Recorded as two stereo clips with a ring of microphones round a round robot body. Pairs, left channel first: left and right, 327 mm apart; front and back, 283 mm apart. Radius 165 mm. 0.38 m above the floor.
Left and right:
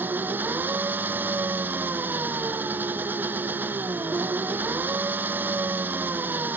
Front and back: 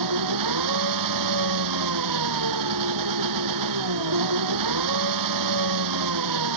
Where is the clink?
I don't hear a clink.